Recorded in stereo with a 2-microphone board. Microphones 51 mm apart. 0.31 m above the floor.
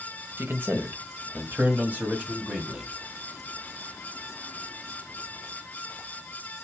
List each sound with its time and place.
0.4 s a man speaking: 50° right (ahead or behind), 1.3 m; by 2.9 s 25° right (ahead or behind), 1.8 m